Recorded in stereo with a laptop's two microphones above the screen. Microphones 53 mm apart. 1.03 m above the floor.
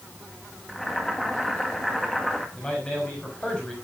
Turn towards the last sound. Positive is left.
turn(degrees=20)  # may be behind; listen again after turning